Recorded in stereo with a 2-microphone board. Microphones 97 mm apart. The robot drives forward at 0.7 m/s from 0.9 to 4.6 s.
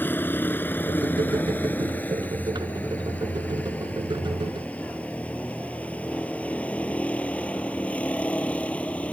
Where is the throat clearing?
No throat clearing in this recording.